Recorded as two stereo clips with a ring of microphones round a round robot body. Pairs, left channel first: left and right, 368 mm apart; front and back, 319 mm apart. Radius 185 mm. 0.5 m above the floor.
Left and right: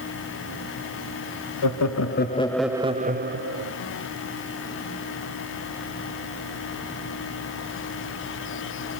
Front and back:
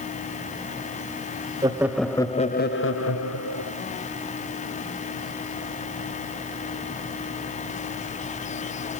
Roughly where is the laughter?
Left.